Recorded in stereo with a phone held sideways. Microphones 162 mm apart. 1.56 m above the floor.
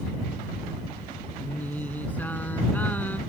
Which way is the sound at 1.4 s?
10° left (ahead or behind).